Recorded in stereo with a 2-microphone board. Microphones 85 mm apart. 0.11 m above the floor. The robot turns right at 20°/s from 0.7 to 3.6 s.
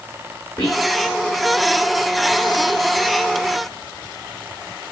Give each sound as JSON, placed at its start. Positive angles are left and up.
{"t": 0.6, "sound": "whispering", "side_deg": 50, "distance_m": 7.5}